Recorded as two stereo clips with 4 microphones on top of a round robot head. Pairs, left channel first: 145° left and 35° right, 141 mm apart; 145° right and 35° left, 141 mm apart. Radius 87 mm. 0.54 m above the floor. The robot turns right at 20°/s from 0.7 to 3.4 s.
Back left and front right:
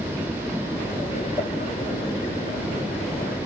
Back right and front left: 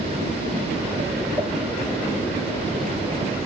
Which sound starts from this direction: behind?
A pop, at 1.4 s.